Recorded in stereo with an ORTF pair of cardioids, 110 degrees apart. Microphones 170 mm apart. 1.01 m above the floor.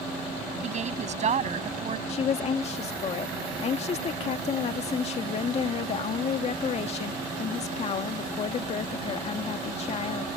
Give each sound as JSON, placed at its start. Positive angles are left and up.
{"t": 0.6, "sound": "a woman speaking", "azimuth_deg": -45}
{"t": 2.1, "sound": "a woman speaking", "azimuth_deg": 40}